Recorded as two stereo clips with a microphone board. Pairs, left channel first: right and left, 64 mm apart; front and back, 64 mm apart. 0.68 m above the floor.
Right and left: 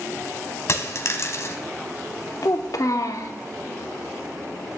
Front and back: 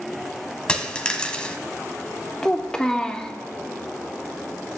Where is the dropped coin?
70° right, 0.8 m.